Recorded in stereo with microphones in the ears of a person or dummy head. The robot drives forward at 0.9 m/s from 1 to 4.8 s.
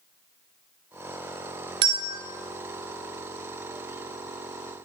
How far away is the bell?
About 0.7 m.